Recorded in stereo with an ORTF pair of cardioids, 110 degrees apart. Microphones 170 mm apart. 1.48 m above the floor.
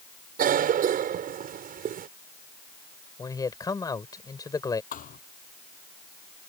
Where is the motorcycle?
I don't hear a motorcycle.